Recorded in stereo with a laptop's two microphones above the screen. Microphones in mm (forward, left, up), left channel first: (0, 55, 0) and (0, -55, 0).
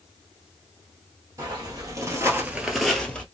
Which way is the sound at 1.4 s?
30° right (ahead or behind).